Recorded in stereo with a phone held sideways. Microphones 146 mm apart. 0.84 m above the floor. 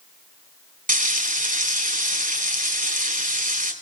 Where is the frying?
55° right (ahead or behind), 4 m.